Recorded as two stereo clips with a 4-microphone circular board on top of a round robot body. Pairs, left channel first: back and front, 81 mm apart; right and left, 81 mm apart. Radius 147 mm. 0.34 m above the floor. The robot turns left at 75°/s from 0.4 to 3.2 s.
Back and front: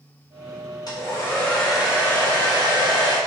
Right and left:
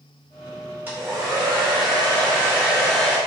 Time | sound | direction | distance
0.9 | a hair dryer | 155° left | 1.1 m